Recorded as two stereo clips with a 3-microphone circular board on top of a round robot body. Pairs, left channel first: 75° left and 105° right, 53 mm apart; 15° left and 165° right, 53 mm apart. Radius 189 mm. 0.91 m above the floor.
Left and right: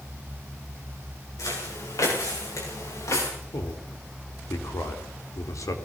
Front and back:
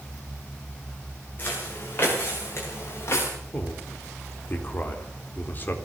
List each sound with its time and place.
1.4 s footsteps: 70° left, 8 m; by 3.3 s 55° left, 9 m
3.5 s a man speaking: 70° left, 4 m